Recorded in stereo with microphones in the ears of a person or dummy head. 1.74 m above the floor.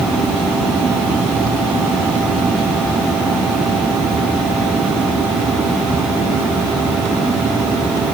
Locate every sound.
Only background noise.